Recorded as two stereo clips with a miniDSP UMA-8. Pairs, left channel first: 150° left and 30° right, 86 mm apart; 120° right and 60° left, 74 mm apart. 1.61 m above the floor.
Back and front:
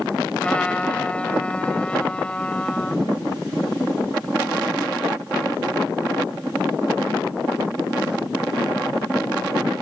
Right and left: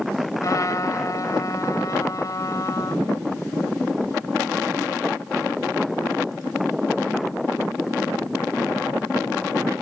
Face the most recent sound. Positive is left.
turn(degrees=-135)